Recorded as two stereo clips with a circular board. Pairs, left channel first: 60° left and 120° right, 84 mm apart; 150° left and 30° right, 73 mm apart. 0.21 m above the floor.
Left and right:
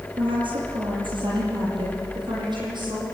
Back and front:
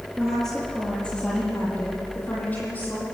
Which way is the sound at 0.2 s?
125° right.